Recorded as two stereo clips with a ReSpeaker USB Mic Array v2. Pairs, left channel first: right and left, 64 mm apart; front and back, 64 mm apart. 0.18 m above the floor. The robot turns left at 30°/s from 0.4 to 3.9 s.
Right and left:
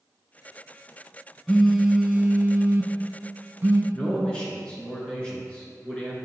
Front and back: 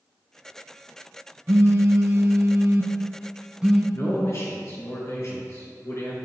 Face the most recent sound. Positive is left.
turn(degrees=-20)